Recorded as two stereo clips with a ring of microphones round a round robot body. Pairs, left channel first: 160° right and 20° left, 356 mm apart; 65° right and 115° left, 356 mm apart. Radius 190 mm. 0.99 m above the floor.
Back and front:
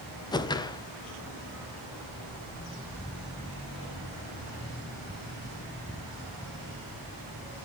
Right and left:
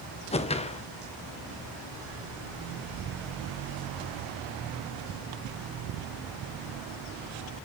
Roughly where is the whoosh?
Right.